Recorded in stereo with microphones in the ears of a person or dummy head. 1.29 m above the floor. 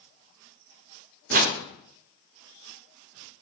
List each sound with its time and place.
1.3 s a whoosh: 45° right (ahead or behind), 0.6 m